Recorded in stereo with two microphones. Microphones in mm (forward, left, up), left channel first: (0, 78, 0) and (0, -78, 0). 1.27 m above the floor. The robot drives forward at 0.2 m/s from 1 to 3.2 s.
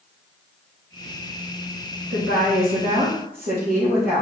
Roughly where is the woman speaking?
Right.